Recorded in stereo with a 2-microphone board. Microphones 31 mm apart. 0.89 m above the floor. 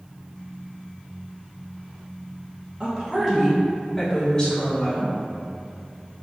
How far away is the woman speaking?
About 1.0 m.